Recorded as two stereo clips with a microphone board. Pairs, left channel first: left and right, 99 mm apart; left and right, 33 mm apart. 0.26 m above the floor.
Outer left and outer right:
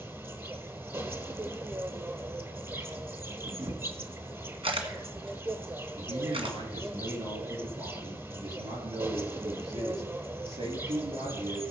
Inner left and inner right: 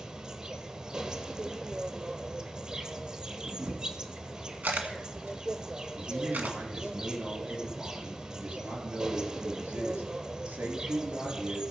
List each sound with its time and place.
0.0 s an insect: 25° right (ahead or behind), 1.1 m
3.4 s a camera shutter: 65° right (ahead or behind), 1.7 m
6.0 s a man speaking: 75° right (ahead or behind), 5 m